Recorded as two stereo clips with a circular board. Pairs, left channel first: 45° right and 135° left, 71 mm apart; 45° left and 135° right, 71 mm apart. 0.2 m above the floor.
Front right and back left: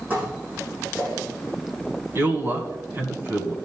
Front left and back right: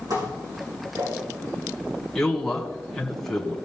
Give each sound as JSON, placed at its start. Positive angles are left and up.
{"t": 0.1, "sound": "dishes clattering", "azimuth_deg": -160, "distance_m": 6.5}
{"t": 2.1, "sound": "a man speaking", "azimuth_deg": 125, "distance_m": 1.6}